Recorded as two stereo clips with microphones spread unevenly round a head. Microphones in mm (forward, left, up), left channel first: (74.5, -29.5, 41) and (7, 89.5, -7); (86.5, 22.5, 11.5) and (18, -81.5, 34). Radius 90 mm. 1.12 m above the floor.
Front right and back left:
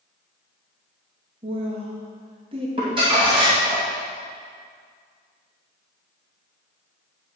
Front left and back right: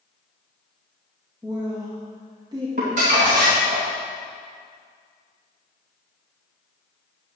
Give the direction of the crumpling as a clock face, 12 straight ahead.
6 o'clock.